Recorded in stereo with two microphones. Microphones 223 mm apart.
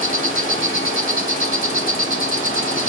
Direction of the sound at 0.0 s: 35° left (ahead or behind).